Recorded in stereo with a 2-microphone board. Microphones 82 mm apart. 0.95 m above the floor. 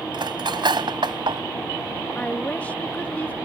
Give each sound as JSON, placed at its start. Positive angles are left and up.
{"t": 0.1, "sound": "cutlery clinking", "side_deg": -70}
{"t": 2.1, "sound": "a woman speaking", "side_deg": 15}